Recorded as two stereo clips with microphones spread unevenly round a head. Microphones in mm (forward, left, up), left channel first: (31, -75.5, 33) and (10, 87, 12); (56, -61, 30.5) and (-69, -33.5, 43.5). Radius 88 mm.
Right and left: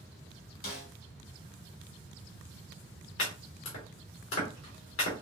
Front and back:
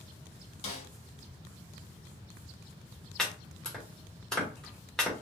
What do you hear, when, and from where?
0.6 s a snare drum: 50° right, 1.9 m
3.2 s chopping: 100° right, 2 m